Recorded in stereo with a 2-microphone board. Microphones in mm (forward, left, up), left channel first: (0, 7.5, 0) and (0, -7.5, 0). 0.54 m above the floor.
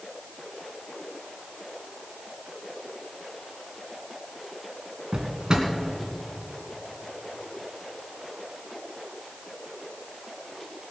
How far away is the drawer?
About 2 m.